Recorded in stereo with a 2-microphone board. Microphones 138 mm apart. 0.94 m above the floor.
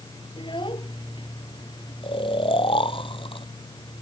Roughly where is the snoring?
Left.